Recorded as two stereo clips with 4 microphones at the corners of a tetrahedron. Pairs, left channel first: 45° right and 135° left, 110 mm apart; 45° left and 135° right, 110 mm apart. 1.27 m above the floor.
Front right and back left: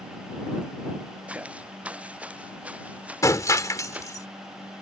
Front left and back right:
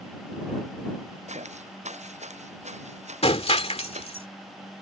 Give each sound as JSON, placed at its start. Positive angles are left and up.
{"t": 1.3, "sound": "footsteps", "azimuth_deg": -145}
{"t": 3.2, "sound": "breaking glass", "azimuth_deg": 15}